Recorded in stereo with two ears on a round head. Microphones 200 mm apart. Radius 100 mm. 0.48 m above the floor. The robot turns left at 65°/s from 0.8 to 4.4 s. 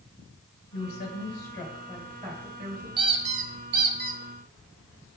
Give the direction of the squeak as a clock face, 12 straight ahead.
1 o'clock.